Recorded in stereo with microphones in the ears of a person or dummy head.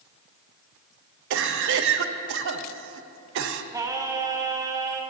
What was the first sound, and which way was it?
A cough, 65° right (ahead or behind).